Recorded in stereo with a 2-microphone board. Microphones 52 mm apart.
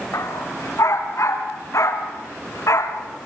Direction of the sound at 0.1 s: 70° left (ahead or behind).